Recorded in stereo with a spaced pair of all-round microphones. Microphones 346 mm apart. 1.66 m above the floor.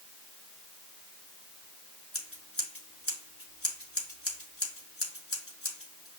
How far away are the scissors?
About 3 m.